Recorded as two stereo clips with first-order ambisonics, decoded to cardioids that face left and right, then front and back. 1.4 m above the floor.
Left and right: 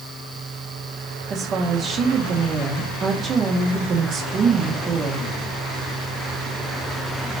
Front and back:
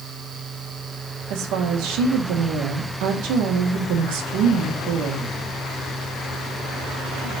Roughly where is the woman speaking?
Behind right.